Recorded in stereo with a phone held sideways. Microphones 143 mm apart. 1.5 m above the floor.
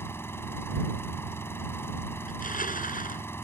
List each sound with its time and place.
0.0 s an engine running: 15° left (ahead or behind)
2.3 s crushing: 75° left (ahead or behind)